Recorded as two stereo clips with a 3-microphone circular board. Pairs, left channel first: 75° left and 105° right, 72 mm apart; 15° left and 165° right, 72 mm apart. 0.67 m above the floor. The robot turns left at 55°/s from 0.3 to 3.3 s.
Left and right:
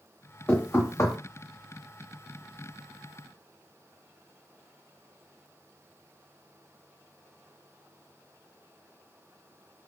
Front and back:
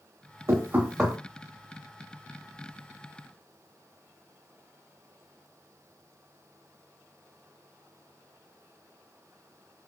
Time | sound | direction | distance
0.5 | knocking | 145° left | 0.8 m